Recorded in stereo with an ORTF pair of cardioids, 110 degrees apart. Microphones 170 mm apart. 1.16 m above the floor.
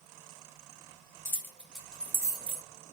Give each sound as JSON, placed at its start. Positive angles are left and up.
{"t": 1.2, "sound": "keys jangling", "azimuth_deg": 15, "distance_m": 1.0}